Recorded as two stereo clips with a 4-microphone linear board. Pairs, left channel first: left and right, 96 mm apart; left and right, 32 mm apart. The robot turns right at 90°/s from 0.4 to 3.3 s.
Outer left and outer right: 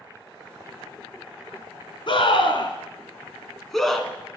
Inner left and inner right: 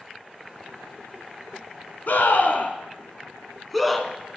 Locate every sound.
2.1 s a scream: 50° left (ahead or behind), 1.8 m; by 4.4 s centre (ahead or behind), 1.8 m